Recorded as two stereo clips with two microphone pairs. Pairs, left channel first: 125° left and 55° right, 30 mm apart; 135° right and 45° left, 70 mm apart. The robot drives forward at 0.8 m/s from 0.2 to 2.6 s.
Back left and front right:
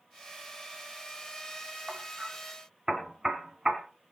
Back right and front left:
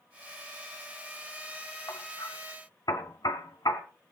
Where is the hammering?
110° right, 2.0 m; by 3.8 s 125° right, 2.5 m.